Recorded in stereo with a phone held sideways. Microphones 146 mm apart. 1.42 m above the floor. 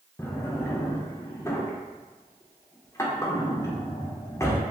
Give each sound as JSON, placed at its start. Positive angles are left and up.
{"t": 0.2, "sound": "a drawer", "side_deg": 20, "distance_m": 0.5}